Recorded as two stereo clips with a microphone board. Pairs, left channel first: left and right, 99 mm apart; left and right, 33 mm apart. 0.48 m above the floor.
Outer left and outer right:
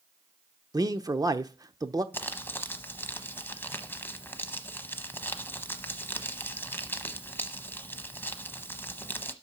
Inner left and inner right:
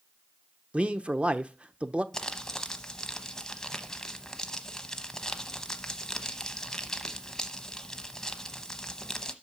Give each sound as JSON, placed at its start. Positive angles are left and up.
{"t": 0.7, "sound": "a man speaking", "side_deg": -40, "distance_m": 0.8}
{"t": 2.1, "sound": "crumpling", "side_deg": 20, "distance_m": 0.9}